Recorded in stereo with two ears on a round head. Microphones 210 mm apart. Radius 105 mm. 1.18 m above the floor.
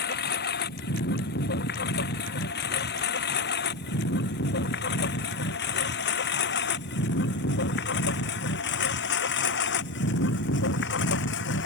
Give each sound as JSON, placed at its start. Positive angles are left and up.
{"t": 0.0, "sound": "a lawn mower", "side_deg": 45}